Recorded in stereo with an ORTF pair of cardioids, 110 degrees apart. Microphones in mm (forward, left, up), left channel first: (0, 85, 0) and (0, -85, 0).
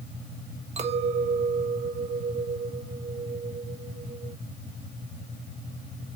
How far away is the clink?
About 1.6 m.